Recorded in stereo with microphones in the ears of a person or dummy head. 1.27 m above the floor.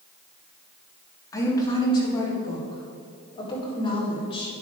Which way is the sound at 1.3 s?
15° left (ahead or behind).